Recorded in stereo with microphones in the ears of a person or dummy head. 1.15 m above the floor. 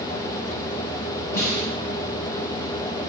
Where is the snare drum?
20° left (ahead or behind), 3 m.